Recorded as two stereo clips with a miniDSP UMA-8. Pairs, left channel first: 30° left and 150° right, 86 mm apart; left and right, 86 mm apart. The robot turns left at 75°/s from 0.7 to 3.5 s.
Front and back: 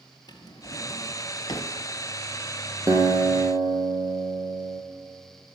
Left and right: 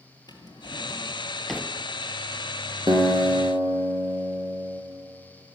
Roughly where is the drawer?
Ahead left.